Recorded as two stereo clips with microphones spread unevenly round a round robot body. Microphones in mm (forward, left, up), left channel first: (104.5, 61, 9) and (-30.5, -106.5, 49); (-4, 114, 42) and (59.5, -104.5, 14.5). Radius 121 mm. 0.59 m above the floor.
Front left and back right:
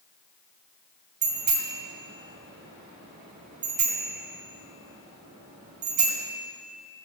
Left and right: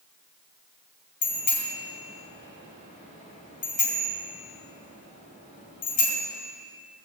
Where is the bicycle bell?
170° left, 2.5 m.